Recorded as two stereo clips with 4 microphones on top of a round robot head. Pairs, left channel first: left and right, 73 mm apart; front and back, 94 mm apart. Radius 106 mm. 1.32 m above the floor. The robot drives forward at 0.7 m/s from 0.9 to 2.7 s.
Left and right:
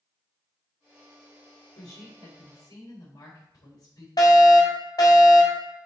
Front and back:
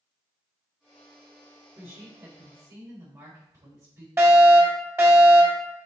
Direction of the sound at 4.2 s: 115° left.